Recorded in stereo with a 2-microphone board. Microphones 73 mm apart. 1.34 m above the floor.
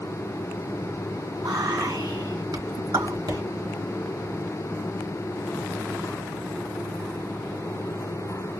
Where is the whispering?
65° right (ahead or behind), 3.5 m.